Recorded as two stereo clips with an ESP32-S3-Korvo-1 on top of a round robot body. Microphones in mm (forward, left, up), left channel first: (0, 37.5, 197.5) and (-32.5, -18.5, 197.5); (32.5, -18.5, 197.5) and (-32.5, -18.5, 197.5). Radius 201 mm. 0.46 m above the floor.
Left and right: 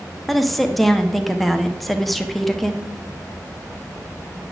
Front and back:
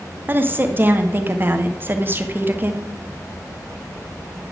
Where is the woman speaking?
145° left, 1.2 m.